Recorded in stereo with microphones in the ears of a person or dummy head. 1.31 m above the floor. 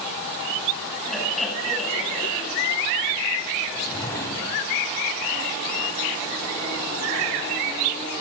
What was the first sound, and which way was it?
Laughter, centre (ahead or behind).